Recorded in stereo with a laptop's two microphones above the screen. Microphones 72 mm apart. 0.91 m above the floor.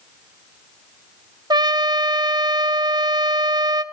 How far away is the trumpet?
About 0.5 m.